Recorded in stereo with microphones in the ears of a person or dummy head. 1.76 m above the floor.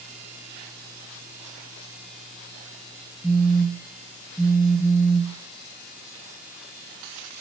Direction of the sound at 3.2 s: Centre (ahead or behind).